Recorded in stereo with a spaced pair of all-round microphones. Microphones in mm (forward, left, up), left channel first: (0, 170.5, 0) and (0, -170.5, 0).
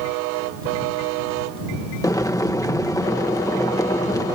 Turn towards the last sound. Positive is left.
turn(degrees=10)  # may be behind; listen again after turning